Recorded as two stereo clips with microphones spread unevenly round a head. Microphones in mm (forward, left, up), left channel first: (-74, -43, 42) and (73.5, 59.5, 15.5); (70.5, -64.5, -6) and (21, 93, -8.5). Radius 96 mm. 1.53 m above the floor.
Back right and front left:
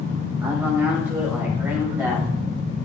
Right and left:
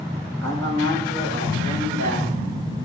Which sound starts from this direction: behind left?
A man speaking, at 0.4 s.